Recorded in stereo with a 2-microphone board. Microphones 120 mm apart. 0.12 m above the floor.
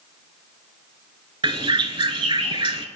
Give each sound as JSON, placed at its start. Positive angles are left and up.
{"t": 1.4, "sound": "a bird", "side_deg": -45, "distance_m": 0.5}